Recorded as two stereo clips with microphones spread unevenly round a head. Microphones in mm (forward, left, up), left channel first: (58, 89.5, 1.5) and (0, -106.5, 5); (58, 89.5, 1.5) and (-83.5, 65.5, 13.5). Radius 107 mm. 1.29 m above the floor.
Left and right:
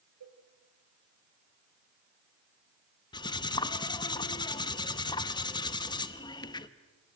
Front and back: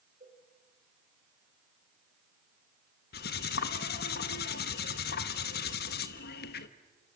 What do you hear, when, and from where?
0.2 s a cowbell: 110° right, 1.8 m
3.1 s cutlery clinking: 5° left, 1.1 m